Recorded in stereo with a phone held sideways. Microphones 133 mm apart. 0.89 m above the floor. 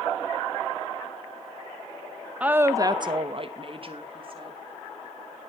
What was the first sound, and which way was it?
A woman speaking, 10° right (ahead or behind).